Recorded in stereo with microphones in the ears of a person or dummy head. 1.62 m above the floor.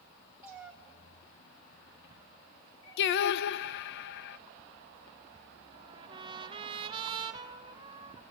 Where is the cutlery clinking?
I don't hear cutlery clinking.